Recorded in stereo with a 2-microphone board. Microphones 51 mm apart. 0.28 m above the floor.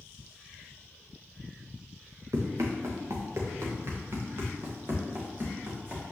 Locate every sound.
2.3 s running footsteps: 80° right, 1.7 m; by 6.0 s 40° right (ahead or behind), 3.5 m